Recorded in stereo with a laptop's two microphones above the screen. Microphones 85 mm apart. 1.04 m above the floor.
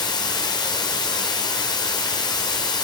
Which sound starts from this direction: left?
Running water, at 0.0 s.